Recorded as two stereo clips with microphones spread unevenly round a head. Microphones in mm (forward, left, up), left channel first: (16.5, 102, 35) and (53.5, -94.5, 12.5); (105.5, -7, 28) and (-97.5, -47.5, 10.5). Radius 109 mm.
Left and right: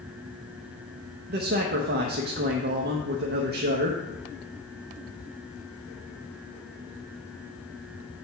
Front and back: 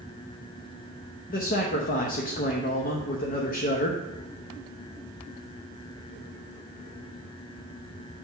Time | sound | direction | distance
1.3 | a man speaking | 40° right | 0.9 m